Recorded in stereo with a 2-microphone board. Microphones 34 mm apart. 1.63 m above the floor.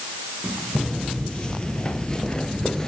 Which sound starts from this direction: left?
Footsteps, at 0.8 s.